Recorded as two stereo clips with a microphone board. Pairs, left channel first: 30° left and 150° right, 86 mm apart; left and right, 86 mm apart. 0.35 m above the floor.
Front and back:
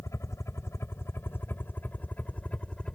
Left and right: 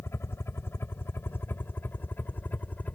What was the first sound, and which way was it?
A helicopter, 55° left.